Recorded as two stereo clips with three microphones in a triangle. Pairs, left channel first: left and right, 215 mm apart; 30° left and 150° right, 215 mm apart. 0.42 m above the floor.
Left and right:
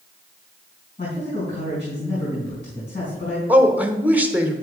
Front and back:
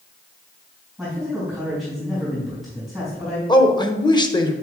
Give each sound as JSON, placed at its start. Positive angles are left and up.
{"t": 1.0, "sound": "a man speaking", "azimuth_deg": 120, "distance_m": 3.5}
{"t": 3.5, "sound": "a man speaking", "azimuth_deg": -15, "distance_m": 0.9}